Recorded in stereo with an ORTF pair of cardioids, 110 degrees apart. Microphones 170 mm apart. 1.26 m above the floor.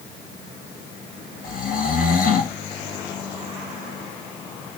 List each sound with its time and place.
1.4 s snoring: 60° left, 2 m